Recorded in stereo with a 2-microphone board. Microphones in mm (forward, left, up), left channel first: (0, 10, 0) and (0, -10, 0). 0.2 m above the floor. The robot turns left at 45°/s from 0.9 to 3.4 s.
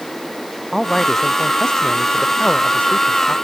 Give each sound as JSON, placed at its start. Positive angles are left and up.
{"t": 0.7, "sound": "a man speaking", "azimuth_deg": 180}